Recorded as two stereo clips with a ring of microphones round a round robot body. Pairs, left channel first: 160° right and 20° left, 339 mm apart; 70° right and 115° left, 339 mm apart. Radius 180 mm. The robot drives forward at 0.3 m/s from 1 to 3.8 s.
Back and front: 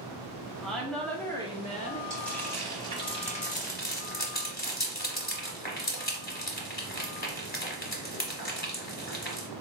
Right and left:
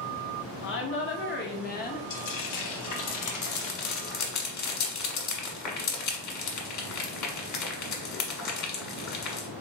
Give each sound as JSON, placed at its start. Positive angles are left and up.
{"t": 0.6, "sound": "a woman speaking", "azimuth_deg": -70, "distance_m": 0.8}
{"t": 2.1, "sound": "frying", "azimuth_deg": -70, "distance_m": 1.2}